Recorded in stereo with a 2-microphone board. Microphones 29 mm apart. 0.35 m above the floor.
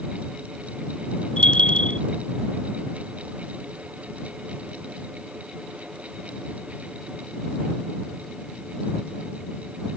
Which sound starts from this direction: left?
A bell, at 1.4 s.